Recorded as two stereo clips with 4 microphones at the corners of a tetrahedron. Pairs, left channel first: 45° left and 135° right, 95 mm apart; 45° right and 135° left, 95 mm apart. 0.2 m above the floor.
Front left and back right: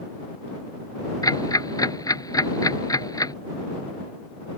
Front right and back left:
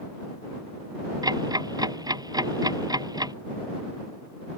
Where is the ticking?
90° left.